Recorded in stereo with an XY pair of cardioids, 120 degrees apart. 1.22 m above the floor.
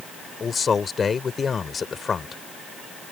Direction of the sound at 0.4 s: 30° left.